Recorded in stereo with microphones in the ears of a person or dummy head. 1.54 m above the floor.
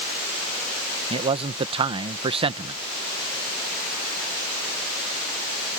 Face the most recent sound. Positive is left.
turn(degrees=-35)  # may be behind; listen again after turning